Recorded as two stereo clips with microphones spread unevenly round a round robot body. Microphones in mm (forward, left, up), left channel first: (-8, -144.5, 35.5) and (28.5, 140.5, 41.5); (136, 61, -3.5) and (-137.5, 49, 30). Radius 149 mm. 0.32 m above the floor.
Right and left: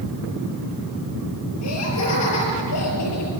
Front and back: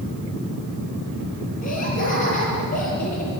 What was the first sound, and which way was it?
Laughter, 65° right.